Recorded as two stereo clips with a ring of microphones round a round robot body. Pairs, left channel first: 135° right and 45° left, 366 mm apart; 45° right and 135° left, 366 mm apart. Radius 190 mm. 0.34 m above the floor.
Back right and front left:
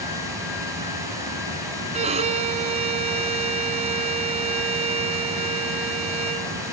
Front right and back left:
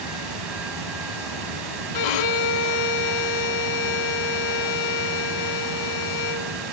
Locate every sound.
0.0 s running water: 125° left, 3 m
1.9 s a violin: 30° right, 0.9 m